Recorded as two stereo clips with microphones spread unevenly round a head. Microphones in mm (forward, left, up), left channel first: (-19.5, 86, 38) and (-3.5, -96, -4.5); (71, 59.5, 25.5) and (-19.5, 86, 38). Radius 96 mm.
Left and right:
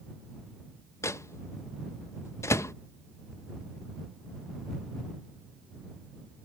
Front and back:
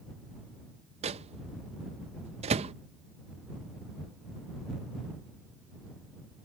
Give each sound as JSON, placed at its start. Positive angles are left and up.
{"t": 1.0, "sound": "a microwave", "azimuth_deg": 175}